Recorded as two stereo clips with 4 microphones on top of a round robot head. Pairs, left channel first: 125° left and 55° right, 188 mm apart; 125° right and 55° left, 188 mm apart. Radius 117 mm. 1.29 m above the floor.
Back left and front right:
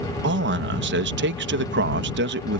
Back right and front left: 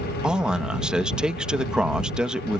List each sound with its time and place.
0.2 s a man speaking: 30° right